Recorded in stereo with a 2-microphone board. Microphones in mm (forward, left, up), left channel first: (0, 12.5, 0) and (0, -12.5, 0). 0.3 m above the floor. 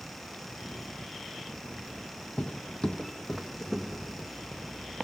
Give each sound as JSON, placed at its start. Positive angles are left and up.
{"t": 2.4, "sound": "footsteps", "side_deg": 60, "distance_m": 0.6}